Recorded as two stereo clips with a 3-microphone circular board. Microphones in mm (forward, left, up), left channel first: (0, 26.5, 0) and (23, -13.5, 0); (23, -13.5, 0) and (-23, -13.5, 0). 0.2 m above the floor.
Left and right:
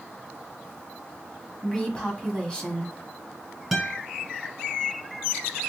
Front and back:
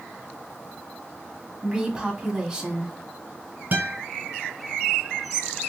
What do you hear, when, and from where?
1.6 s a woman speaking: 140° left, 1.0 m
3.7 s a guitar: 145° right, 0.9 m